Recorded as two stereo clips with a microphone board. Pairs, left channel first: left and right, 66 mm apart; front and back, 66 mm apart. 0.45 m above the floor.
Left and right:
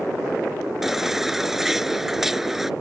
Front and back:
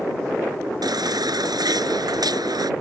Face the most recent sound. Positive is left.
turn(degrees=-175)